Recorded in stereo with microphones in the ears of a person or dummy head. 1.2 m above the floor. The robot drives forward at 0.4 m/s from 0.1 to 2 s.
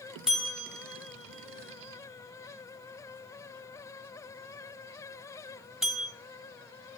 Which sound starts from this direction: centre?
A bell, at 0.3 s.